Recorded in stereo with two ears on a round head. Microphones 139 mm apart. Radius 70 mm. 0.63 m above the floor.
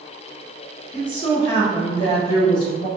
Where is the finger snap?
I don't hear a finger snap.